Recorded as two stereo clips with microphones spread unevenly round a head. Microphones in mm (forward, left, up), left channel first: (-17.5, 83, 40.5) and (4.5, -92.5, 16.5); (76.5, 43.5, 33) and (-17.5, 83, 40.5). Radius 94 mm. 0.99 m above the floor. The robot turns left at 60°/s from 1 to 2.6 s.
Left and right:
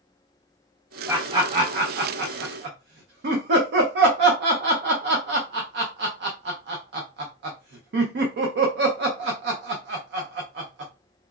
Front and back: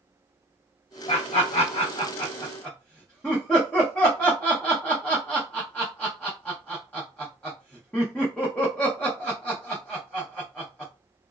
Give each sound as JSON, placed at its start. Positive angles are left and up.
{"t": 1.1, "sound": "laughter", "azimuth_deg": -5, "distance_m": 0.6}